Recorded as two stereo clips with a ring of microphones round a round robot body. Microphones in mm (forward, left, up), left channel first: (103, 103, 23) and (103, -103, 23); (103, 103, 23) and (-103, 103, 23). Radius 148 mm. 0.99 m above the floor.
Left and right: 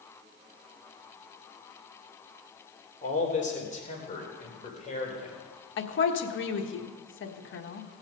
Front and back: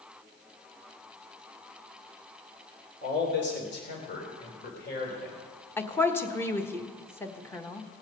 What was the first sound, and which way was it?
A man speaking, 35° left.